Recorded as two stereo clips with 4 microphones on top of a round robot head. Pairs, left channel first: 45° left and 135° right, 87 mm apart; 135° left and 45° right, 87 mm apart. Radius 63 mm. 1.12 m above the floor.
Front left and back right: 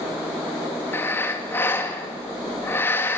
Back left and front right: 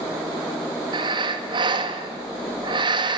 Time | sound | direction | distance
0.9 | breathing | 20° right | 2.5 m